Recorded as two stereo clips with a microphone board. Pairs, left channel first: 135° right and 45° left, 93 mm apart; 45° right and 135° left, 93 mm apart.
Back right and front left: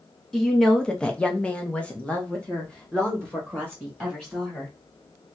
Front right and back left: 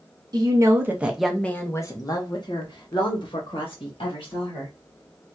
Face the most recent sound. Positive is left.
turn(degrees=-55)